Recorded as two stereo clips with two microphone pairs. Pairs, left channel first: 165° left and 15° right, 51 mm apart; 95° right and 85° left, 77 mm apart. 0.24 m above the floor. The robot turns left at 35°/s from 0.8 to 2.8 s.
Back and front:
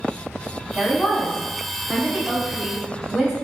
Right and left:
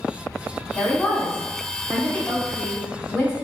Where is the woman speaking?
30° right, 1.1 m; by 3.3 s 100° right, 1.1 m.